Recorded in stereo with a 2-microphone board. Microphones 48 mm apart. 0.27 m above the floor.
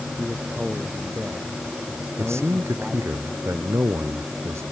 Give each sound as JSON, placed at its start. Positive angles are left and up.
{"t": 0.2, "sound": "a man speaking", "side_deg": -20}
{"t": 2.2, "sound": "a man speaking", "side_deg": -75}